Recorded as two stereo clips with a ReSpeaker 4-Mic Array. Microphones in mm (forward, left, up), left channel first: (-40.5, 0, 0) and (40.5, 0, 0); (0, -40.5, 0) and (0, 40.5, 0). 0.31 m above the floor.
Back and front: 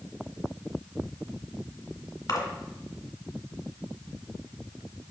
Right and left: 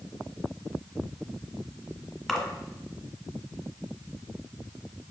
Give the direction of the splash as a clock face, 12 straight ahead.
6 o'clock.